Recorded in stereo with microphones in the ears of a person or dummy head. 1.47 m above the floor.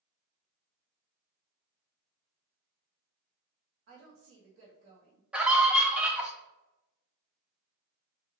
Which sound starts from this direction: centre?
A scream, at 5.3 s.